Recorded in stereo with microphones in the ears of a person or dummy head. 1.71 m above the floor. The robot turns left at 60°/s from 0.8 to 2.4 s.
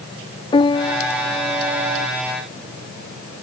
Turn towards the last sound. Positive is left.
turn(degrees=-70)